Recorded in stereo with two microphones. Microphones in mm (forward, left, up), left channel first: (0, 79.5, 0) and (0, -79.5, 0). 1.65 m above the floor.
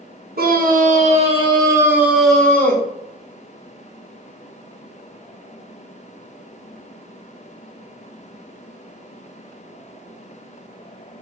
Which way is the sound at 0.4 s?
65° right (ahead or behind).